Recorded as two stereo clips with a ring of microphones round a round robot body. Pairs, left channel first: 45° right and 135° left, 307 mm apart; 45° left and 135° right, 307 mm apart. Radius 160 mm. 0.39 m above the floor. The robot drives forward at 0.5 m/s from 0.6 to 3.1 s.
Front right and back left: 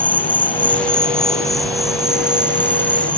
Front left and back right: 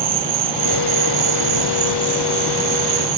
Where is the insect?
130° right; by 3.2 s 140° right.